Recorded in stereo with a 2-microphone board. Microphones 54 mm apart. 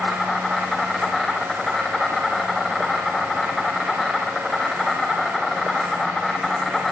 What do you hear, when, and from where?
0.0 s an insect: 5° left (ahead or behind), 4 m